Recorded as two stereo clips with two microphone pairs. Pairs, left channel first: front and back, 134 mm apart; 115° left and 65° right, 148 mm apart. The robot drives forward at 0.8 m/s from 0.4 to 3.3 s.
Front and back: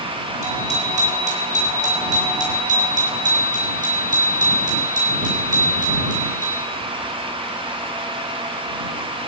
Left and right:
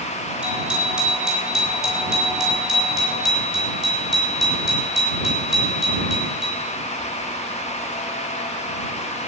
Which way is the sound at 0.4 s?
150° right.